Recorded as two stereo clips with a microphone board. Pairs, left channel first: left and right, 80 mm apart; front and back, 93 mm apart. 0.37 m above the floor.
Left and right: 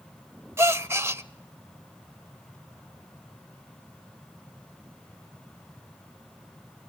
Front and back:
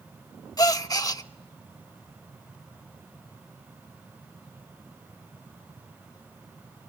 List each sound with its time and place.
0.6 s a gasp: 40° right, 0.6 m